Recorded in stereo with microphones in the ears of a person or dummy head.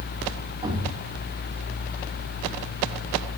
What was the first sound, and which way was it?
A thud, 25° right (ahead or behind).